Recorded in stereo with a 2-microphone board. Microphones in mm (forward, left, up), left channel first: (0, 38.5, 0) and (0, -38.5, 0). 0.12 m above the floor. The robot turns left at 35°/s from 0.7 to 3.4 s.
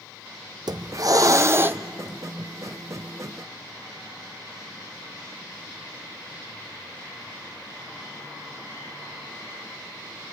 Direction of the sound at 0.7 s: 115° right.